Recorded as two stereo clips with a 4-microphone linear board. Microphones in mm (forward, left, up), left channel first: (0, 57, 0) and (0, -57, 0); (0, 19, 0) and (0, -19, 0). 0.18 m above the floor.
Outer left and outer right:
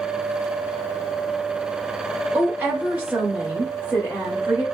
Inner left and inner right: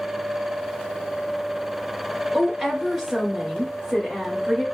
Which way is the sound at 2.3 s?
10° right (ahead or behind).